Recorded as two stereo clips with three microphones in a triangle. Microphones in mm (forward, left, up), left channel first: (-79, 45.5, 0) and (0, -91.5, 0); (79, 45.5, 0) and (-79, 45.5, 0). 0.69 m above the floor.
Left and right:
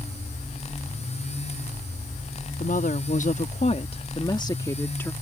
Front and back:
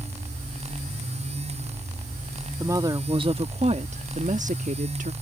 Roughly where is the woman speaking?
Behind left.